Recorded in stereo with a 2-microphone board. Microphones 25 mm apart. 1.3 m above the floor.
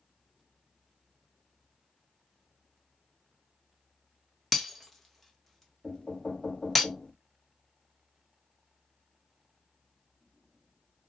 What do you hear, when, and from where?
4.5 s breaking glass: 10° left (ahead or behind), 0.9 m
5.8 s knocking: 40° left (ahead or behind), 1.3 m